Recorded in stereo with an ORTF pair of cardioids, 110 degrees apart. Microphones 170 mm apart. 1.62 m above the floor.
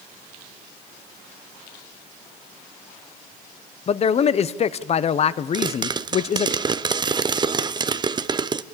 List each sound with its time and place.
3.9 s a man speaking: 40° left, 1.0 m
5.5 s a pop: 25° right, 0.7 m